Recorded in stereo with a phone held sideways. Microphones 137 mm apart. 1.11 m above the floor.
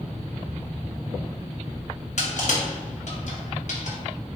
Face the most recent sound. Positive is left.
turn(degrees=60)  # may be behind; listen again after turning